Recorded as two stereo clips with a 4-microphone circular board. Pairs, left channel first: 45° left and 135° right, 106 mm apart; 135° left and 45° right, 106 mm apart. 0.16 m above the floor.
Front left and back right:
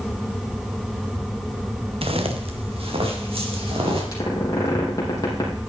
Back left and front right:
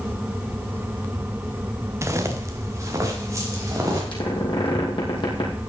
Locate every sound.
2.0 s footsteps: 110° right, 1.7 m; by 4.0 s 105° right, 4.5 m
4.1 s a squeak: 100° left, 3.5 m